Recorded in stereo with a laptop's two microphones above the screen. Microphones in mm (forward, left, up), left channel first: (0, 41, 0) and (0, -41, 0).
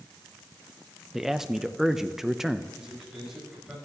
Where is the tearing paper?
I don't hear tearing paper.